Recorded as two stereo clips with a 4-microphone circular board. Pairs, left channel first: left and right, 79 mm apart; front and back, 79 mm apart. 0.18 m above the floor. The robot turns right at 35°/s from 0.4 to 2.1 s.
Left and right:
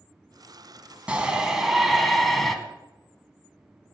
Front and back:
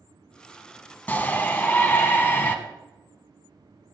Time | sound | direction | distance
1.1 | a shout | 35° right | 1.1 m